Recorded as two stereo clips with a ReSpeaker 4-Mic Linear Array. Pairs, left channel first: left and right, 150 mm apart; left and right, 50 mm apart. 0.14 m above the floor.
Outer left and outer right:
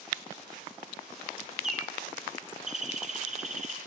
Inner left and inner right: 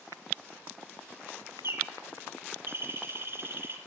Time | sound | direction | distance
1.6 | a bird | 55° right (ahead or behind) | 4 m